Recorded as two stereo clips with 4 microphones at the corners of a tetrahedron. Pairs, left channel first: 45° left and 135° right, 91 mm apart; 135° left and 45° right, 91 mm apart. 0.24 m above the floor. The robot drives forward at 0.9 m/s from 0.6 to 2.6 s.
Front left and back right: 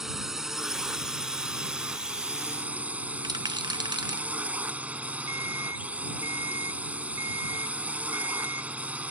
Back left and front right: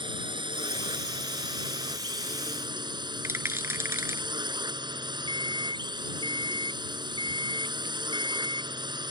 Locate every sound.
0.0 s a drone: 50° right; by 9.1 s 65° right
3.2 s a rattle: 105° right
5.3 s an alarm clock: 165° left